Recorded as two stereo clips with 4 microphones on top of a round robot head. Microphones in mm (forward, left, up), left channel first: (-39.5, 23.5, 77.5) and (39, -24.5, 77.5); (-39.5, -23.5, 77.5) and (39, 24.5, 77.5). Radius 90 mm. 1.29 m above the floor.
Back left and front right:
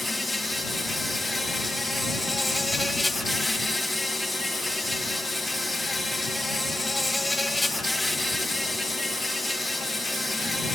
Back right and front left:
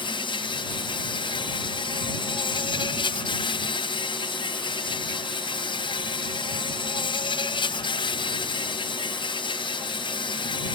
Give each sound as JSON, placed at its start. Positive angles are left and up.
{"t": 0.0, "sound": "an insect", "azimuth_deg": -120}